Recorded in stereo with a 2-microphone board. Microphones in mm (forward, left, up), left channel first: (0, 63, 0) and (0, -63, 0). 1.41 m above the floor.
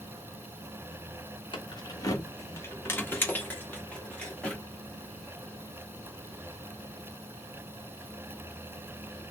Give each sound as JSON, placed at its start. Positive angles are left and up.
{"t": 1.5, "sound": "keys jangling", "side_deg": 40, "distance_m": 0.9}